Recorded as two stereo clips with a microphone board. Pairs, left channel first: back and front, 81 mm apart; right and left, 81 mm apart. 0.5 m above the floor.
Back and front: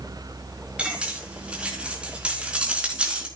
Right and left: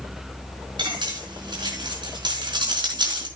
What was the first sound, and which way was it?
Cutlery clinking, 75° left.